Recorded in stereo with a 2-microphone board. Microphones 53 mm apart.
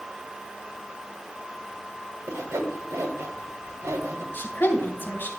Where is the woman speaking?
40° left (ahead or behind), 2.5 m.